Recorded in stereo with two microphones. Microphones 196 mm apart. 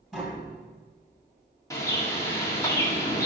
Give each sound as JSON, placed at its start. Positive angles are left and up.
{"t": 0.1, "sound": "tapping", "side_deg": -5, "distance_m": 2.5}
{"t": 1.7, "sound": "a bird", "side_deg": 15, "distance_m": 1.5}